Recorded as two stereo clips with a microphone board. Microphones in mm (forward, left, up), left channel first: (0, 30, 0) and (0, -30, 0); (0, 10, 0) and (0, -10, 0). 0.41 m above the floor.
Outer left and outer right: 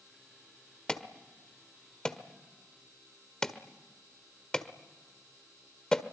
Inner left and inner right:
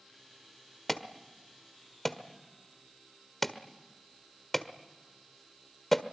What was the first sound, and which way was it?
An alarm, 10° left (ahead or behind).